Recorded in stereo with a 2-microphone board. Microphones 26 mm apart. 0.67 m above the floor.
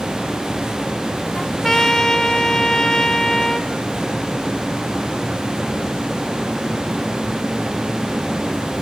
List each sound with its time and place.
1.4 s a trumpet: 25° left (ahead or behind), 1.3 m